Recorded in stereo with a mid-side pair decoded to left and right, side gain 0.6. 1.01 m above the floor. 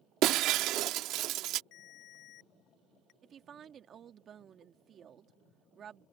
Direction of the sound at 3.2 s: 40° right.